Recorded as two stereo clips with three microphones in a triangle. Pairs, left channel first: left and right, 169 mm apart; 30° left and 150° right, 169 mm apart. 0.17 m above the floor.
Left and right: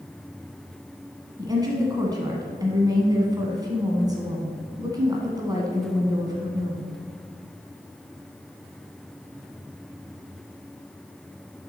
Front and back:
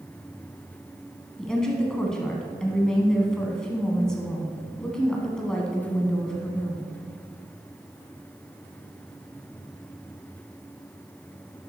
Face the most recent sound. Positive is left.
turn(degrees=-55)